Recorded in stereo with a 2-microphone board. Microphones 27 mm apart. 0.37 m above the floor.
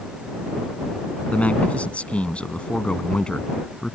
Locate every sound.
1.3 s a man speaking: 65° left (ahead or behind); by 4.0 s 25° left (ahead or behind)